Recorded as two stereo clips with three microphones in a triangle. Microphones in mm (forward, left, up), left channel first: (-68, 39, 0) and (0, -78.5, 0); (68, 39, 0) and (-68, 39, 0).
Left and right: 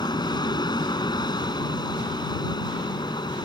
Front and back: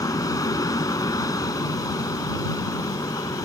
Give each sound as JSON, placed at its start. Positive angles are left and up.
{"t": 0.0, "sound": "an aircraft", "azimuth_deg": 65}